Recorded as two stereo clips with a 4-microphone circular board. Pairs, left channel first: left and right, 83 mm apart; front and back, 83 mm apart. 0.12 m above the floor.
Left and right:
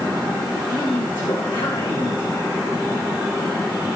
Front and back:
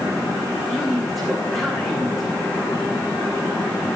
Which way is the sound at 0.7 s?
90° left.